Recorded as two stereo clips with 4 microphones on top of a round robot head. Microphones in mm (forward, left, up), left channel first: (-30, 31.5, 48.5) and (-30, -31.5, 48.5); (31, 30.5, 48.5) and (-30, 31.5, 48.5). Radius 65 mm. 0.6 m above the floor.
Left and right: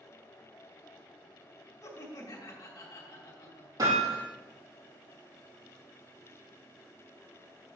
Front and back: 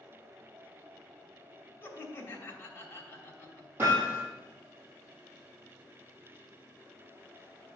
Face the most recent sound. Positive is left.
turn(degrees=-115)